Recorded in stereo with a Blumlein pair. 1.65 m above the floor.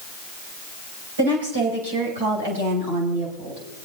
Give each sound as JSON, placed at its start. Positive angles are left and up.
{"t": 1.2, "sound": "a woman speaking", "azimuth_deg": -65, "distance_m": 8.0}